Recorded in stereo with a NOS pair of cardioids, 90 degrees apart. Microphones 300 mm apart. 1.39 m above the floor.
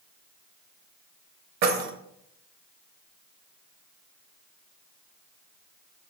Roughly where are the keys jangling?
Ahead right.